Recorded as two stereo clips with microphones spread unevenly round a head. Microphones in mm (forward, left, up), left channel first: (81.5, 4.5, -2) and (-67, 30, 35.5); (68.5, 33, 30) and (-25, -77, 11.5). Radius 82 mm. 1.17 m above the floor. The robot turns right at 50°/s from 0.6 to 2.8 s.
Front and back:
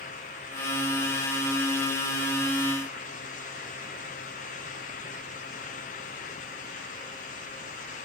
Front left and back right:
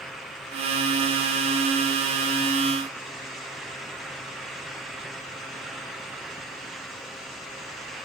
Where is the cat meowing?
No cat meowing in this recording.